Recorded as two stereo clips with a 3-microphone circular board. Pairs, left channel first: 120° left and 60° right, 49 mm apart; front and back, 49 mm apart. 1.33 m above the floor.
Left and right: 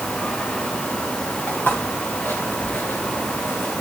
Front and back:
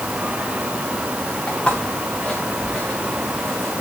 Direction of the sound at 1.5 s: 70° left.